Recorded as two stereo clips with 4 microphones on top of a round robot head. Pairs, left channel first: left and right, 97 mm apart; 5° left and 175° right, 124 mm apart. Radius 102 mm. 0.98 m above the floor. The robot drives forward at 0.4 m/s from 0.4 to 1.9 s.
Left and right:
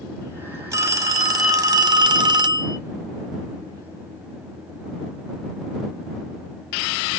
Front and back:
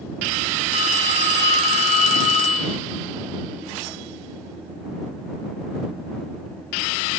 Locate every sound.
0.7 s a phone ringing: 25° right, 1.2 m; by 2.8 s 40° right, 0.8 m